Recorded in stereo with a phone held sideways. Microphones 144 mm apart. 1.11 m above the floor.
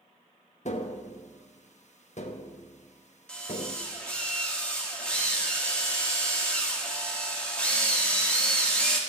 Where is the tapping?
55° left (ahead or behind), 1.0 m.